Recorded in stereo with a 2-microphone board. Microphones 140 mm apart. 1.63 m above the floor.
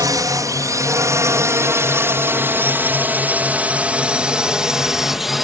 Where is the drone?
25° right (ahead or behind); by 5.4 s centre (ahead or behind).